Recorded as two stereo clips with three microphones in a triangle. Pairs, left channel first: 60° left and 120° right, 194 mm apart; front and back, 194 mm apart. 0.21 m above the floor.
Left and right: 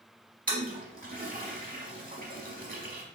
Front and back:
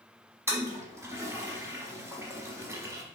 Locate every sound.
0.5 s a toilet flushing: 110° right, 0.8 m